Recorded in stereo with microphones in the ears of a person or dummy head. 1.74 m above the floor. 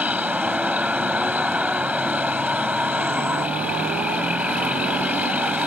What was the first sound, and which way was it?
A vehicle, 10° right (ahead or behind).